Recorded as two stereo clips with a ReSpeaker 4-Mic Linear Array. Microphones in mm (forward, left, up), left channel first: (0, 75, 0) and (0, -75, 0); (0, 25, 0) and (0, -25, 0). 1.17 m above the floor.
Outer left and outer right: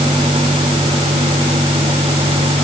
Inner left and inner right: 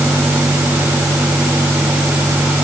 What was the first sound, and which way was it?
Only background noise.